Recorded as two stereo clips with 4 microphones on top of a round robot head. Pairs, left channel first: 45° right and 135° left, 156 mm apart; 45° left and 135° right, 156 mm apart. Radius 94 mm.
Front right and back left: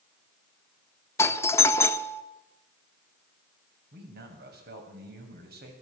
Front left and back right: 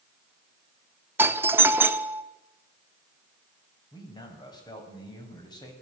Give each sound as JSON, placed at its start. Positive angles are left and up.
{"t": 1.2, "sound": "a doorbell", "azimuth_deg": -85, "distance_m": 1.4}
{"t": 3.9, "sound": "a man speaking", "azimuth_deg": 110, "distance_m": 6.5}